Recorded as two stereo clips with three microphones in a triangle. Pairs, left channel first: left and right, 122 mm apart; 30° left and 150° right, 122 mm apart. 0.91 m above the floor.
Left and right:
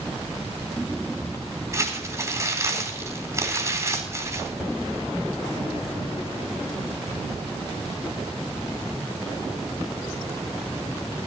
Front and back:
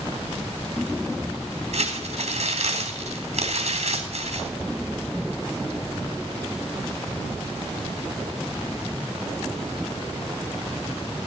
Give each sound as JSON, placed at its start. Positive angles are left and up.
{"t": 1.7, "sound": "crumpling", "azimuth_deg": -150, "distance_m": 3.5}